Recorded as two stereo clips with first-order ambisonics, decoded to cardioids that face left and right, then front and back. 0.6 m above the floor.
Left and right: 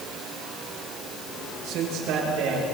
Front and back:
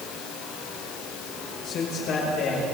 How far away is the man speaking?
About 9.5 m.